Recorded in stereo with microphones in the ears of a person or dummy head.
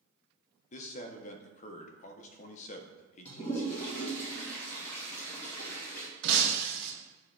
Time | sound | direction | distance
0.7 | a man speaking | 45° left (ahead or behind) | 0.6 m
3.2 | a toilet flushing | 15° left (ahead or behind) | 1.8 m
6.2 | breaking glass | 60° right (ahead or behind) | 0.9 m